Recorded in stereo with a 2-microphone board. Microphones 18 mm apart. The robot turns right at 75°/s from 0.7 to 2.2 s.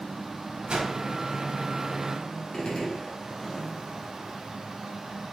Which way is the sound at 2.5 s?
55° left (ahead or behind).